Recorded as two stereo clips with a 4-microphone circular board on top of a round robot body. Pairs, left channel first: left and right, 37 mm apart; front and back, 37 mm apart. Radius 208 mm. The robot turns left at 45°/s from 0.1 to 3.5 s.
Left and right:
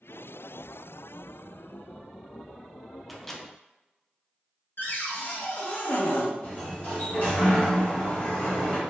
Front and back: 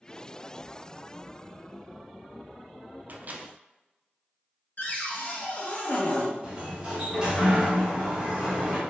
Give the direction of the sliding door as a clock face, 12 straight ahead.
8 o'clock.